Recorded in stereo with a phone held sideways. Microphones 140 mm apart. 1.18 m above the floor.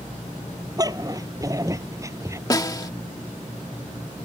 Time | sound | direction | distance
0.8 | a dog barking | 25° right (ahead or behind) | ?
2.5 | a snare drum | 25° left (ahead or behind) | ?